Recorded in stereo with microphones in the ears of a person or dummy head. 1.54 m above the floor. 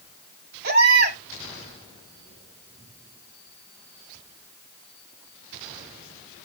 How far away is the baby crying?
About 5.5 m.